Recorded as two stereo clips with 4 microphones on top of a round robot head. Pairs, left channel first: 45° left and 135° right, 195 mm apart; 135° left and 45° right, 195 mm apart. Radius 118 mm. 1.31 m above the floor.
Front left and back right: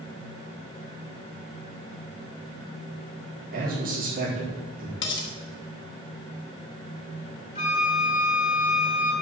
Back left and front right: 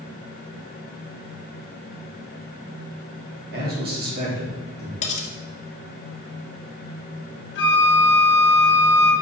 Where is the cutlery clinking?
80° left, 1.8 m.